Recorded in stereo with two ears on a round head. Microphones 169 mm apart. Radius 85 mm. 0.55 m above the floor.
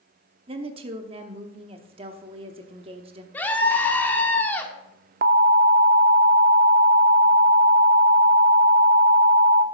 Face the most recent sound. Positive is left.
turn(degrees=-50)  # may be behind; listen again after turning